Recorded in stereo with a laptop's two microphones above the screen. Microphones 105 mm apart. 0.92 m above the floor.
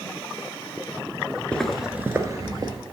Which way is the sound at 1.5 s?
10° left (ahead or behind).